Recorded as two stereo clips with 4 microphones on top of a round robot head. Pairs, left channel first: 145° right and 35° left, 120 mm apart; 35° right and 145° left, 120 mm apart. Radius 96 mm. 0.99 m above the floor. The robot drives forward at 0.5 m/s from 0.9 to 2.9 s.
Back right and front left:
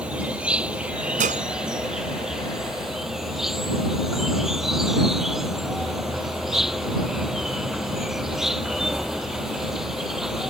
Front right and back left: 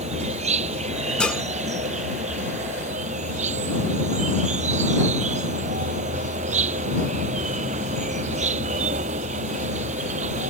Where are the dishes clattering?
45° left; by 1.4 s 50° left.